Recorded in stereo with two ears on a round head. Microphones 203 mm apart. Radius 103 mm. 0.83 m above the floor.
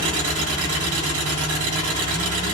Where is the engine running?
65° right (ahead or behind), 6 m.